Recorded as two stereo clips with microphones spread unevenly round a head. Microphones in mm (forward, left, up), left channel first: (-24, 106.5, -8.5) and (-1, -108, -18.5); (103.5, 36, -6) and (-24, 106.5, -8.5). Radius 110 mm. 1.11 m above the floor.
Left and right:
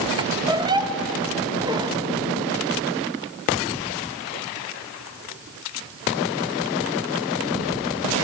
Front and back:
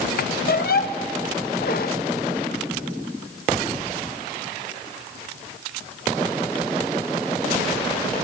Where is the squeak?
10° right, 0.7 m.